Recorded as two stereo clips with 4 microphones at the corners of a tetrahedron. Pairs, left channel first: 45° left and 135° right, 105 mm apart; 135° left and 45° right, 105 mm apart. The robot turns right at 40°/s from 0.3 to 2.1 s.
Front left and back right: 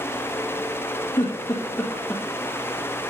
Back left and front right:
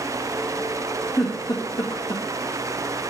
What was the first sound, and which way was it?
A giggle, 85° left.